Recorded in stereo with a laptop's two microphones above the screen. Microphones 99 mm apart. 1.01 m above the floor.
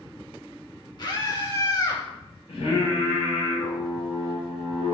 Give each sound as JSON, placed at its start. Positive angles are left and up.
{"t": 1.0, "sound": "a scream", "side_deg": 45, "distance_m": 2.0}
{"t": 2.5, "sound": "singing", "side_deg": 85, "distance_m": 2.0}